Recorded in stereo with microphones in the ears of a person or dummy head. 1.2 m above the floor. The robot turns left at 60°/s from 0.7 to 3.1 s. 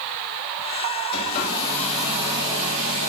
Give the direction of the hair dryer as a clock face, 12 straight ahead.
10 o'clock.